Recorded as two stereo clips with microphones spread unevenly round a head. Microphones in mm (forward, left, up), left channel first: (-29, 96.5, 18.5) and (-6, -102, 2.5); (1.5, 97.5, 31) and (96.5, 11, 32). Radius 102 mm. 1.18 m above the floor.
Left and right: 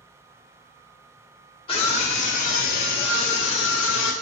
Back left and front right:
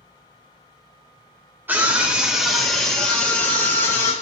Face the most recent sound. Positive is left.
turn(degrees=75)